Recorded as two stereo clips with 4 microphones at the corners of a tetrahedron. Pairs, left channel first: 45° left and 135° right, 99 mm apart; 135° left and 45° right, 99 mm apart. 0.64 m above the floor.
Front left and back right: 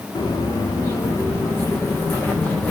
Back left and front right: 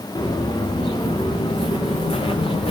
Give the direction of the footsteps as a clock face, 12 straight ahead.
9 o'clock.